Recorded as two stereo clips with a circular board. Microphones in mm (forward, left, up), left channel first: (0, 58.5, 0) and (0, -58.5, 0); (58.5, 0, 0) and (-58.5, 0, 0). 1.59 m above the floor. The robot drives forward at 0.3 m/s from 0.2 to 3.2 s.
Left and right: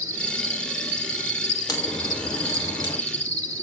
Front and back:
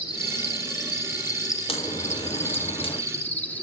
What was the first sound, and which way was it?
An insect, 30° right.